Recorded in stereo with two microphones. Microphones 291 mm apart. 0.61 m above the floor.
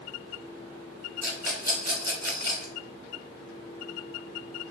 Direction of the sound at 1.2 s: 70° right (ahead or behind).